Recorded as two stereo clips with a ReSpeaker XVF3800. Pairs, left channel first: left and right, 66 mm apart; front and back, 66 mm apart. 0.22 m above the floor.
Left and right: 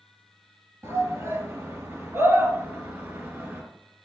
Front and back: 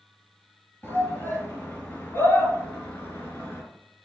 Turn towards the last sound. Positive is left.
turn(degrees=-45)